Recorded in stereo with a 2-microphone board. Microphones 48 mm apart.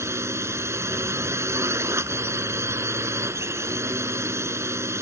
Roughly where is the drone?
Right.